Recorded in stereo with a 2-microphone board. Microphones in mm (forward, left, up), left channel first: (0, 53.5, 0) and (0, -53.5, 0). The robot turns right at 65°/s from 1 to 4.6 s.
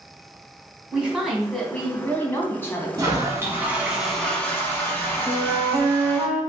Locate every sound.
0.9 s a woman speaking: 10° right (ahead or behind), 1.1 m; by 2.9 s 25° left (ahead or behind), 1.1 m
3.0 s a toilet flushing: 70° right, 1.0 m; by 6.3 s 35° left, 1.0 m
5.3 s a flute: 10° right (ahead or behind), 2 m